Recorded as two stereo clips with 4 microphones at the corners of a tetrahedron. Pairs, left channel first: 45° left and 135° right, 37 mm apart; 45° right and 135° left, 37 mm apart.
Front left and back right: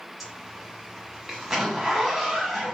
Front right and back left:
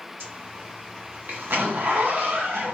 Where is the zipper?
145° left, 0.7 m.